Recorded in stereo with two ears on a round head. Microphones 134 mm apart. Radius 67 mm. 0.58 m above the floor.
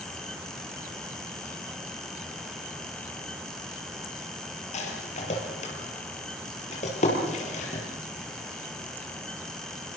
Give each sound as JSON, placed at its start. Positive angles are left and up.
{"t": 4.7, "sound": "a rattle", "side_deg": 45, "distance_m": 6.5}